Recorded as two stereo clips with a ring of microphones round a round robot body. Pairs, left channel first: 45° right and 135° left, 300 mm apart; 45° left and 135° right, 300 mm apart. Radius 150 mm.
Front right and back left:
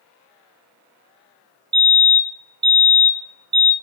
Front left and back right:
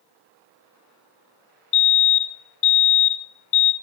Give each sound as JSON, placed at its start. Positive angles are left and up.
{"t": 1.7, "sound": "a fire alarm", "azimuth_deg": 60, "distance_m": 4.5}